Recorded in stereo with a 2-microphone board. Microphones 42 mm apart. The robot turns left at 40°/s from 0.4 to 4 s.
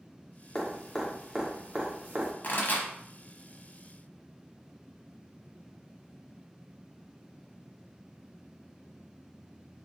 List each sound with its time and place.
0.6 s dripping: 20° left (ahead or behind), 1.2 m; by 2.3 s 50° right (ahead or behind), 1.2 m
2.4 s a pop: 45° left (ahead or behind), 1.1 m; by 2.9 s 50° left (ahead or behind), 1.1 m